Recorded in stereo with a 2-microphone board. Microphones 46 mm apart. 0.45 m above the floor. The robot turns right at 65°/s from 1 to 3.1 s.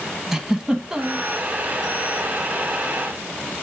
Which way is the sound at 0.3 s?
10° right (ahead or behind).